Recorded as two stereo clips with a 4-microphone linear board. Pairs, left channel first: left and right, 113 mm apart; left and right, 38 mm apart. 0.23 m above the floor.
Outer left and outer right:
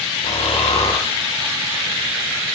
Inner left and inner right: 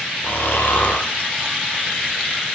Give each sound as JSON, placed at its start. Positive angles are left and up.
{"t": 0.2, "sound": "snoring", "side_deg": 75, "distance_m": 3.5}